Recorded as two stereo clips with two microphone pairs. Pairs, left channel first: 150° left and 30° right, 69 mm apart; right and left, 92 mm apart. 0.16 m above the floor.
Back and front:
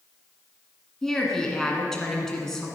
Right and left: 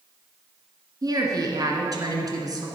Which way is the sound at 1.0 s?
65° left.